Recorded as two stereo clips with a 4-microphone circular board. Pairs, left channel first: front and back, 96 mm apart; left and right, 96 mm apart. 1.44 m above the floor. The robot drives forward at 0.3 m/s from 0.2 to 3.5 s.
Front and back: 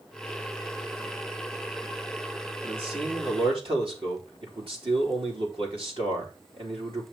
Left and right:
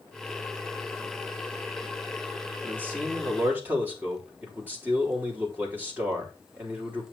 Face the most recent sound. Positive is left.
turn(degrees=-160)